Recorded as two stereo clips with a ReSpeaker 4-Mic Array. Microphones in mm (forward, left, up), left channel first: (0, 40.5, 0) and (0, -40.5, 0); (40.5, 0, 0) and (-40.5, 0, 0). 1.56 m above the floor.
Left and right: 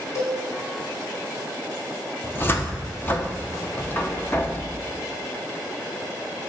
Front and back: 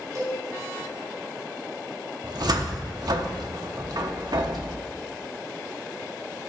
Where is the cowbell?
135° left, 4 m.